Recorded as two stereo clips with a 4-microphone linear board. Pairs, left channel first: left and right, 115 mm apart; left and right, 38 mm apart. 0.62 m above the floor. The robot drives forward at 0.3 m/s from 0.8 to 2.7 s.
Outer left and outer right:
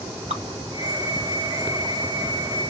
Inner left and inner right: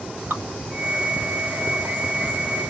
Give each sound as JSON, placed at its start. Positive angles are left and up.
{"t": 0.3, "sound": "dripping", "side_deg": -85, "distance_m": 1.8}